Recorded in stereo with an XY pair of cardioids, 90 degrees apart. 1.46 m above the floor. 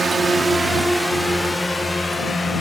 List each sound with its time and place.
0.0 s a drone: 40° right; by 2.6 s 20° left